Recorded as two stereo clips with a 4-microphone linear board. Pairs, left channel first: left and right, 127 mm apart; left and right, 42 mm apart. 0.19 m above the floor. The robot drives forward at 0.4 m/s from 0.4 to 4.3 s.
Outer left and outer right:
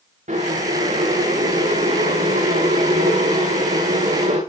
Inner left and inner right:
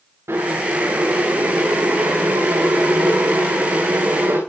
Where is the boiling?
85° right, 10 m; by 4.4 s 80° right, 10 m.